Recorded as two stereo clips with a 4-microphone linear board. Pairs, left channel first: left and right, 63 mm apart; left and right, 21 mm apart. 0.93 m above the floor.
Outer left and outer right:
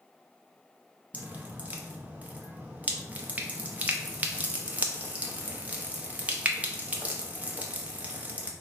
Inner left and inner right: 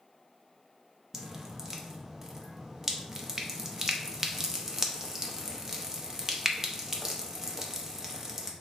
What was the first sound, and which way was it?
Dripping, 25° right (ahead or behind).